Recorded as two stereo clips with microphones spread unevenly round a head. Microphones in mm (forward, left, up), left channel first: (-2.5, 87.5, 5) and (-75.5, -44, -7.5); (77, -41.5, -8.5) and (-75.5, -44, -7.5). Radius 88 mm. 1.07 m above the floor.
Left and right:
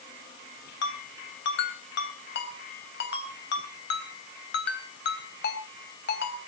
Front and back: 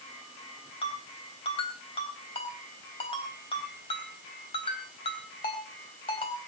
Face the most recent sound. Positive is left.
turn(degrees=65)